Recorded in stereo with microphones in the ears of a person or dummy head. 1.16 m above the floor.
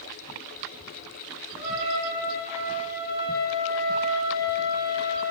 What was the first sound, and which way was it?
A trumpet, 40° right (ahead or behind).